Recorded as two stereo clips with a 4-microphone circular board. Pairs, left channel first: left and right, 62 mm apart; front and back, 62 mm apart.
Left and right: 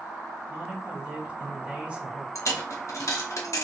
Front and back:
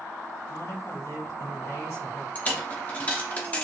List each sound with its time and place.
0.5 s a man speaking: 20° right, 2.5 m
2.4 s a dropped coin: 60° left, 0.9 m